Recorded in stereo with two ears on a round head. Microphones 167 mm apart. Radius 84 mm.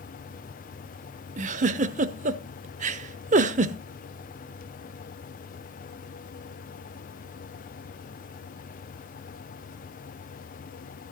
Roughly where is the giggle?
Right.